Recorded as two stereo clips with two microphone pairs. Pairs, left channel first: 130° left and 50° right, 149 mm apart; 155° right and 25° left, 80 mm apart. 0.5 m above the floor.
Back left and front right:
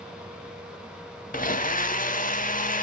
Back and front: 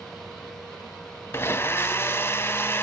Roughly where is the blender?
Behind left.